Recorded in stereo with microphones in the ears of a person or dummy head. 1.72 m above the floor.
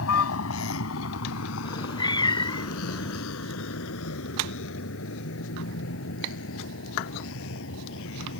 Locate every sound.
0.0 s a vehicle: 80° left; by 8.4 s 70° left (ahead or behind)
1.6 s a cat meowing: 25° left (ahead or behind)